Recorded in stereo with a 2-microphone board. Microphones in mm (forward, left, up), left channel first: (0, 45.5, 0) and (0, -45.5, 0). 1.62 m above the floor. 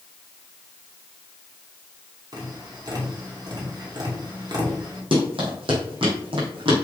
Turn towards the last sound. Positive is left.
turn(degrees=-65)  # may be behind; listen again after turning